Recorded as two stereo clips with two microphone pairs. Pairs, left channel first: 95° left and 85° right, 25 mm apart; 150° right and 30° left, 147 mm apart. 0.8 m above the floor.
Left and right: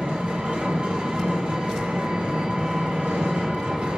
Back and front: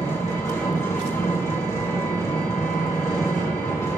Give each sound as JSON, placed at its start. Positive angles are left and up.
{"t": 0.0, "sound": "an engine running", "azimuth_deg": -80, "distance_m": 2.0}